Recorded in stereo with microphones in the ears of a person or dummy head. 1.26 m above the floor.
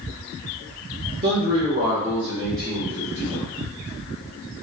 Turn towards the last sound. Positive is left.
turn(degrees=10)  # may be behind; listen again after turning